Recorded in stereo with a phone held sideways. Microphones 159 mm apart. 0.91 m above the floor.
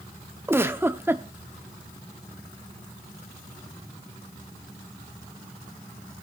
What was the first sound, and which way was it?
A giggle, 15° right (ahead or behind).